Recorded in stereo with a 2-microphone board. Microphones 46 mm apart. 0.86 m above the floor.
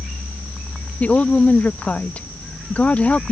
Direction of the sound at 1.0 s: 30° left (ahead or behind).